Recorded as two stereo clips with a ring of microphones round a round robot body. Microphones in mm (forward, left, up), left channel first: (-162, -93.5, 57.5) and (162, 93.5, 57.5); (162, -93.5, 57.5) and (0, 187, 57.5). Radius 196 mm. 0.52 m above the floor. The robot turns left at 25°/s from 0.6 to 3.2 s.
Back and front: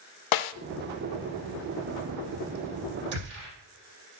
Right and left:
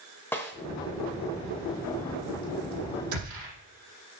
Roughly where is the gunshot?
Left.